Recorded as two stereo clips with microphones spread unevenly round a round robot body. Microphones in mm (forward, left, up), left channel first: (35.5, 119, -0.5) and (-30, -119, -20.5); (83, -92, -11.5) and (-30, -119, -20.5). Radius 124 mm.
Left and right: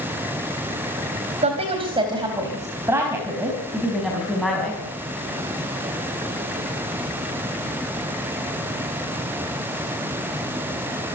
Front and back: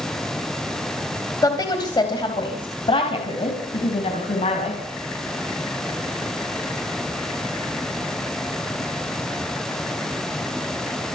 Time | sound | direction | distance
1.4 | a woman speaking | 40° right | 3 m